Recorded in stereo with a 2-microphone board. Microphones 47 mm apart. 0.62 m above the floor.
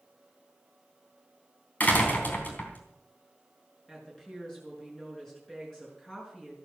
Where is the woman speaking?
10° left (ahead or behind), 6.5 m.